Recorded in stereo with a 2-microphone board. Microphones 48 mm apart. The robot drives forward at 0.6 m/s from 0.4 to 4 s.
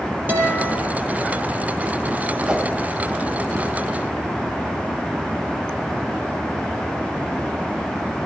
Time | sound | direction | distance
0.3 | a guitar | 45° right (ahead or behind) | 6.5 m
2.5 | a whoosh | 20° right (ahead or behind) | 1.6 m